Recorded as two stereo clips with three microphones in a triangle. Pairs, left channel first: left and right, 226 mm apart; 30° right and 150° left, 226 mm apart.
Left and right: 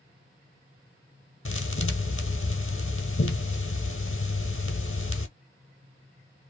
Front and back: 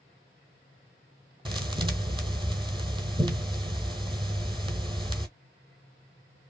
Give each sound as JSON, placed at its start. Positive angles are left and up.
{"t": 1.4, "sound": "a thud", "azimuth_deg": 85, "distance_m": 0.8}